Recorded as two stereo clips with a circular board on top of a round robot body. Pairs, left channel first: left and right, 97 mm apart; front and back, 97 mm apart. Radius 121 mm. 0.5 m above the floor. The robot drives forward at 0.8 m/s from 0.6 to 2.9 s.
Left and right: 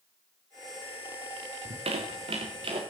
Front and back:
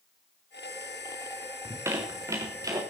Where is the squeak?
115° right, 3.5 m; by 2.8 s 125° right, 4 m.